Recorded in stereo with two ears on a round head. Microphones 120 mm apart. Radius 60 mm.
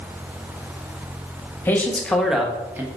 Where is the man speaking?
15° left (ahead or behind), 1.1 m; by 2.9 s 20° right (ahead or behind), 1.0 m.